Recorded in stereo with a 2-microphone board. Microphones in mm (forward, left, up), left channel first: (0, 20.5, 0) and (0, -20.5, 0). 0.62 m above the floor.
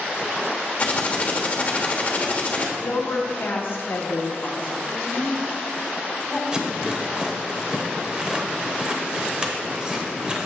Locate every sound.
0.8 s typing on a keyboard: 30° left (ahead or behind), 1.1 m
2.8 s a woman speaking: 55° left (ahead or behind), 1.0 m
4.9 s a woman speaking: 30° left (ahead or behind), 1.7 m
6.5 s a rattle: 20° right (ahead or behind), 0.9 m